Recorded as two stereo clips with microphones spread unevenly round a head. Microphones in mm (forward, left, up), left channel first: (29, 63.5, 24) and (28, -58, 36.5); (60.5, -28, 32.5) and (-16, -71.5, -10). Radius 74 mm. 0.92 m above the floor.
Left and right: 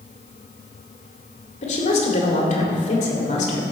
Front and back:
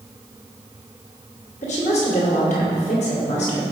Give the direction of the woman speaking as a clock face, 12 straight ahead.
10 o'clock.